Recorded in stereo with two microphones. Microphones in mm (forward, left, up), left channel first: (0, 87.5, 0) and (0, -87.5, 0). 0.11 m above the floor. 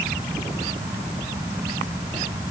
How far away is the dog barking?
I don't hear a dog barking.